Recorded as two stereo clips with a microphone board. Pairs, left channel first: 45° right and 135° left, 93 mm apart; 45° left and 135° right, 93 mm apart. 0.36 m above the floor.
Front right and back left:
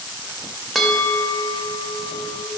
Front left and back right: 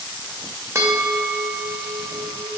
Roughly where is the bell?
Behind right.